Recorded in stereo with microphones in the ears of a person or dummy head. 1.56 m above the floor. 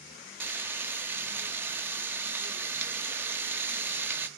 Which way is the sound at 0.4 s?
15° right (ahead or behind).